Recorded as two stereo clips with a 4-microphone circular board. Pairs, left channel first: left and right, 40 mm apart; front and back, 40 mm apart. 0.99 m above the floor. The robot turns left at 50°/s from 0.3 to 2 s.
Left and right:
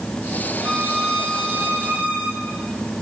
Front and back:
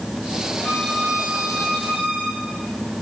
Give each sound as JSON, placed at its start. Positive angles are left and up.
{"t": 0.6, "sound": "a violin", "azimuth_deg": -45, "distance_m": 8.0}